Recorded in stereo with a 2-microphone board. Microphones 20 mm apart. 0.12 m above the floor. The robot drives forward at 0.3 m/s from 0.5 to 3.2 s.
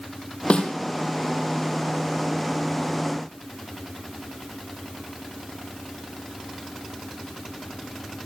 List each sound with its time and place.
0.5 s a snare drum: 70° left (ahead or behind), 3.5 m